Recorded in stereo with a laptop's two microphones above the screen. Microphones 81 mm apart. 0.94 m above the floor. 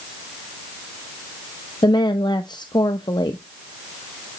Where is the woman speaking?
60° left (ahead or behind), 0.7 m.